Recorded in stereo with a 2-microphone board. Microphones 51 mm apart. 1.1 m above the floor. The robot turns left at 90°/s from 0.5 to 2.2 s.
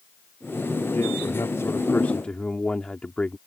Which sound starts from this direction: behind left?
A man speaking, at 0.9 s.